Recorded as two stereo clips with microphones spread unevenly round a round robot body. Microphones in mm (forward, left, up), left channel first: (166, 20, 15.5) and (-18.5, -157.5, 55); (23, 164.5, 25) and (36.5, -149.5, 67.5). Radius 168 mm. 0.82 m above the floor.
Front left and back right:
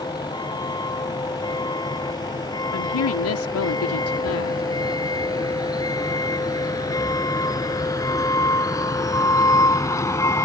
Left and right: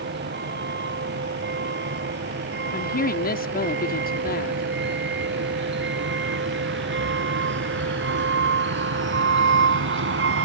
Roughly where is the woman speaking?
Ahead left.